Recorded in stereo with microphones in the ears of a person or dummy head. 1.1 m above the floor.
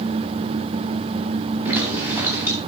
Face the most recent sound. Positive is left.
turn(degrees=-15)  # may be behind; listen again after turning